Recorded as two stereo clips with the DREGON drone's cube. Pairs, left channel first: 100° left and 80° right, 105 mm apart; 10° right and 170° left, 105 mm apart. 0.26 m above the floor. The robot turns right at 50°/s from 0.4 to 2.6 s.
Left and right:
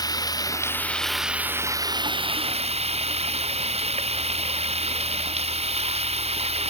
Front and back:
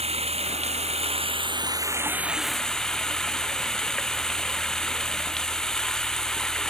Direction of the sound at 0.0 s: 155° left.